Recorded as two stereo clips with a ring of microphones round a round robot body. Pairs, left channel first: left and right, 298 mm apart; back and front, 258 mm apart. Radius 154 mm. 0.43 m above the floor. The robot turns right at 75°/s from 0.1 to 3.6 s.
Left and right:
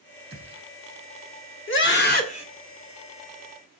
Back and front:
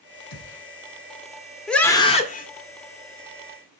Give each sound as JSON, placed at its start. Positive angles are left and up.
{"t": 0.3, "sound": "a gunshot", "azimuth_deg": -160, "distance_m": 3.5}
{"t": 1.7, "sound": "a scream", "azimuth_deg": 90, "distance_m": 1.7}